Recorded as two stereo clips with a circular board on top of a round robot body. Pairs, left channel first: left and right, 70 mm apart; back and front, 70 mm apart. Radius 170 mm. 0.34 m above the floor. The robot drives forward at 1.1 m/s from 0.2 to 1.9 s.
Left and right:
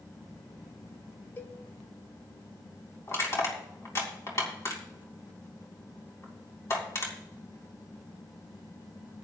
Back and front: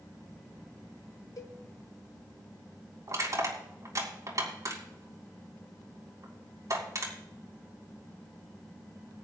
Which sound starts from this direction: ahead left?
Crushing, at 3.1 s.